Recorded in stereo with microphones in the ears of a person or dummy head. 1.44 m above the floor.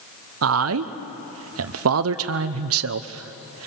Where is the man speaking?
65° right (ahead or behind), 0.7 m.